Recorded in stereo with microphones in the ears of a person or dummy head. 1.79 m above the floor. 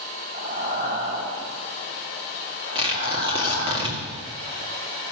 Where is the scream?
I don't hear a scream.